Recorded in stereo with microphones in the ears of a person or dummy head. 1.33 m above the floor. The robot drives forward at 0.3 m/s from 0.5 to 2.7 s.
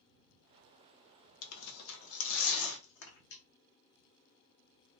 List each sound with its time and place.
1.4 s tearing paper: 80° left, 0.7 m; by 3.4 s 65° left (ahead or behind), 0.7 m